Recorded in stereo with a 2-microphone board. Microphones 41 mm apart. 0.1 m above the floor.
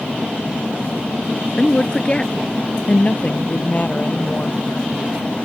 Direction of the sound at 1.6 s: 20° left (ahead or behind).